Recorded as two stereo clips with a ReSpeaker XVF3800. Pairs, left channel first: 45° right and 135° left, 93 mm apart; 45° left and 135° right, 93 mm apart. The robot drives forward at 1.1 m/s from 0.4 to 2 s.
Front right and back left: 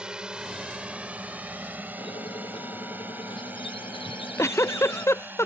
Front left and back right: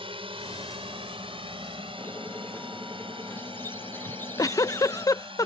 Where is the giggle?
5° left.